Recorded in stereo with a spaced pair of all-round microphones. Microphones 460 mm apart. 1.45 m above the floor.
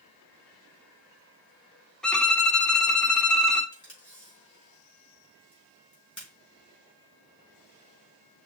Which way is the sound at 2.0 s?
Centre (ahead or behind).